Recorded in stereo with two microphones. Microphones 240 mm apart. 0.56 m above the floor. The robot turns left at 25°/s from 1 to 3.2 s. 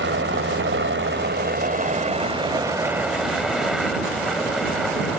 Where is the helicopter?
50° right (ahead or behind); by 5.2 s centre (ahead or behind).